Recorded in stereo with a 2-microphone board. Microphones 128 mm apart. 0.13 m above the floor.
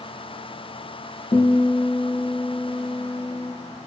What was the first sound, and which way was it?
A guitar, 55° left (ahead or behind).